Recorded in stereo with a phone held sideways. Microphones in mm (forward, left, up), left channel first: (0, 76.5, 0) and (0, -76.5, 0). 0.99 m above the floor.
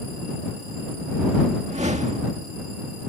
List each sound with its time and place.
1.6 s a whoosh: 50° right (ahead or behind)